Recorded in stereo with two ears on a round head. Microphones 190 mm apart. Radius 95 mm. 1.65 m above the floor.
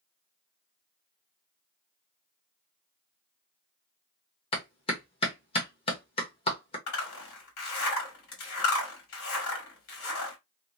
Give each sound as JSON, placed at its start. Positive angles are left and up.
{"t": 4.5, "sound": "a clap", "side_deg": 25, "distance_m": 1.2}
{"t": 6.9, "sound": "a zipper", "side_deg": 70, "distance_m": 1.7}